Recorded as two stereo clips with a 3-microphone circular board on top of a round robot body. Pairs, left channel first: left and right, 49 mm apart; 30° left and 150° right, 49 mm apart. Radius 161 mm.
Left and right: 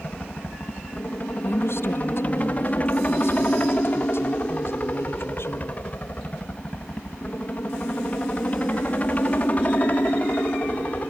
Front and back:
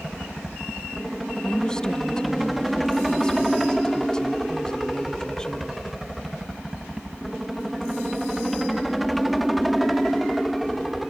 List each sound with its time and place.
0.0 s a helicopter: 120° left
1.4 s a woman speaking: 100° left